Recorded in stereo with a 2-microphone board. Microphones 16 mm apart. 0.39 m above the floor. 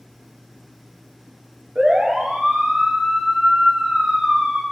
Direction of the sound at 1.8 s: 85° right.